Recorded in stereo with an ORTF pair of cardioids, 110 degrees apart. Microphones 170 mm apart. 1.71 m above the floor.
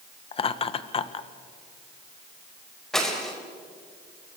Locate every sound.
0.3 s laughter: 35° left, 1.5 m
2.9 s breaking glass: 5° left, 4.5 m